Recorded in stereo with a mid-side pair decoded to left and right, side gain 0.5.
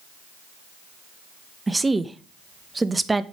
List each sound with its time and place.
1.7 s a woman speaking: 15° right, 0.9 m